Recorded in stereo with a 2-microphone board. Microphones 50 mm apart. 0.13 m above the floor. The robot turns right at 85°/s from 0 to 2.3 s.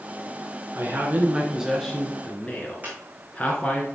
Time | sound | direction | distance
0.8 | a man speaking | 100° right | 1.5 m
2.8 | a squeak | 35° right (ahead or behind) | 3 m